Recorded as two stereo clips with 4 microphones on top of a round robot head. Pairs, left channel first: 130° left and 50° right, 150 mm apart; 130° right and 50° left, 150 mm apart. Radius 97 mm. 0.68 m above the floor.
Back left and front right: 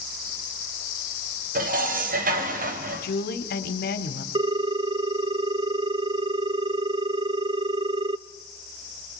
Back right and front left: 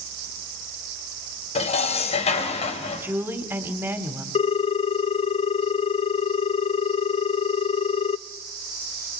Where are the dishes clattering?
80° right, 2.5 m.